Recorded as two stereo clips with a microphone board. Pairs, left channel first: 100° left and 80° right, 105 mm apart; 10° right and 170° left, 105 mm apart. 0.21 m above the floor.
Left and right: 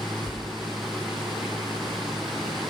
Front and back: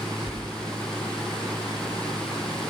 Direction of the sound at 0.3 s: 95° left.